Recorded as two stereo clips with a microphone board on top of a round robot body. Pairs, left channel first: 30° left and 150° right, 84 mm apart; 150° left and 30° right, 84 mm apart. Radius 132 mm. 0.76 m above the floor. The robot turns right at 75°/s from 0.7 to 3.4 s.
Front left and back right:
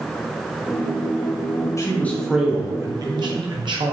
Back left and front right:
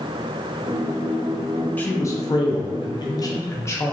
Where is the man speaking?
80° left, 0.9 m; by 3.9 s 160° right, 0.9 m.